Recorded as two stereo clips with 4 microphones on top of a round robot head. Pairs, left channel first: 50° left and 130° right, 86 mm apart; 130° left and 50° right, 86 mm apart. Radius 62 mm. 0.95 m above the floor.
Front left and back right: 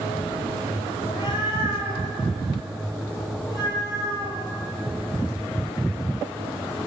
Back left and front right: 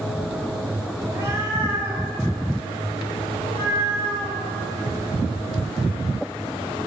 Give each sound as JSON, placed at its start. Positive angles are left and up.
{"t": 1.0, "sound": "a cat meowing", "azimuth_deg": 5, "distance_m": 2.0}